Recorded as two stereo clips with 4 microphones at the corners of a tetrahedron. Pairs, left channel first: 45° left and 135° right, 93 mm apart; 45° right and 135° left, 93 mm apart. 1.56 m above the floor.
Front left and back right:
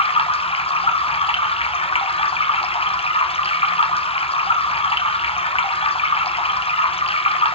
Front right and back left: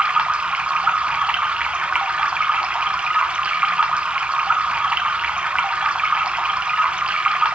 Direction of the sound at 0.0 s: 55° left.